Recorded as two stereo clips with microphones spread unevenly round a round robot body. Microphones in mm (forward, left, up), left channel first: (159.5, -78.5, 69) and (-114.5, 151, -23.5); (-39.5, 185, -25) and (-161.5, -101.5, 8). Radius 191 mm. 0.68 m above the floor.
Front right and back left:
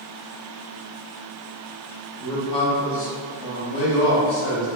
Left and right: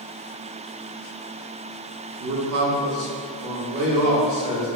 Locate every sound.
2.2 s a man speaking: 155° right, 0.7 m; by 4.7 s 75° right, 1.7 m